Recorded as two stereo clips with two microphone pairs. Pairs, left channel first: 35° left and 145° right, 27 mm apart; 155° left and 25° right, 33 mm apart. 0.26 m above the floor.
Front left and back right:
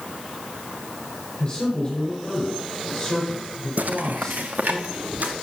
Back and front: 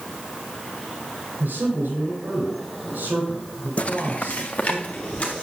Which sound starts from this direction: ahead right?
A man speaking, at 1.4 s.